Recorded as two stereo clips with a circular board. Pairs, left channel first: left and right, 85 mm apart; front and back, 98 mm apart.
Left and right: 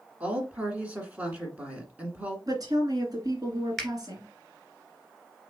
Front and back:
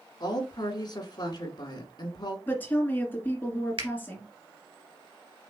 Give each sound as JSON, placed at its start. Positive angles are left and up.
{"t": 0.2, "sound": "a woman speaking", "azimuth_deg": -20, "distance_m": 1.7}
{"t": 2.5, "sound": "a woman speaking", "azimuth_deg": -65, "distance_m": 2.0}
{"t": 3.8, "sound": "a finger snap", "azimuth_deg": 175, "distance_m": 1.7}